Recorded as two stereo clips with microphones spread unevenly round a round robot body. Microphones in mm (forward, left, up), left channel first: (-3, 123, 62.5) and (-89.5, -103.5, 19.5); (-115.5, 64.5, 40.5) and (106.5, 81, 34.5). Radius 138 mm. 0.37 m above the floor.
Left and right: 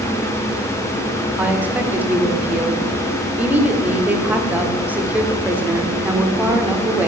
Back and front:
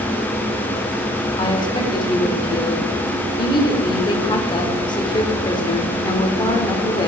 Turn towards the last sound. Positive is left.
turn(degrees=-150)